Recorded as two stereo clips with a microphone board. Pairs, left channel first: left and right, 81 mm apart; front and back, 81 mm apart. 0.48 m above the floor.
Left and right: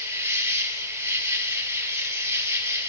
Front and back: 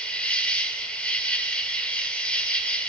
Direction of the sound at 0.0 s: 65° right.